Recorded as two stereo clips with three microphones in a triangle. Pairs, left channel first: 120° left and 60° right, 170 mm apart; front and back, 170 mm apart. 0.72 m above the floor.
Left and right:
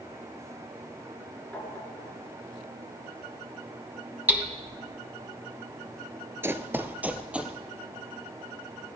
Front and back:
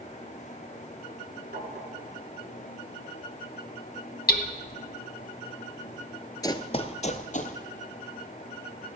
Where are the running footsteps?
10° right, 0.7 m; by 7.5 s 25° left, 1.3 m.